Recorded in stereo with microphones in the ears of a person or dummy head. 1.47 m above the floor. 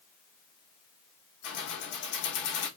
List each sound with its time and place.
1.4 s keys jangling: 60° left (ahead or behind), 1.2 m